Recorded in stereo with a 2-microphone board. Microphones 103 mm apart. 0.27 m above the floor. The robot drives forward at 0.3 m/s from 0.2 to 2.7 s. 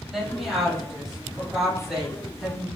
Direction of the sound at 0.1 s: 5° right (ahead or behind).